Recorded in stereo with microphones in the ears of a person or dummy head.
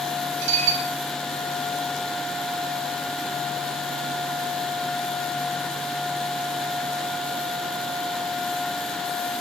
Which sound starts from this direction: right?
Dishes clattering, at 0.4 s.